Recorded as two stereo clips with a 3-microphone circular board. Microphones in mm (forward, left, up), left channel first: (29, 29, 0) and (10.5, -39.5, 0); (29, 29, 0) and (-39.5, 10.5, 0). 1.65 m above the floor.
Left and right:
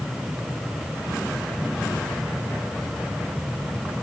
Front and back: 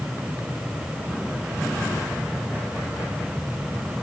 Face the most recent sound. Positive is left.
No sound to turn to.